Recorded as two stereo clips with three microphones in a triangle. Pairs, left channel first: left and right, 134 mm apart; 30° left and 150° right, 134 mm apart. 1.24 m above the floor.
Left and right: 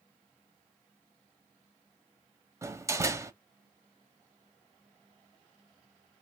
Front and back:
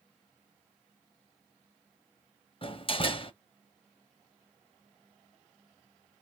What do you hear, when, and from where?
2.6 s a door slam: 20° right, 1.1 m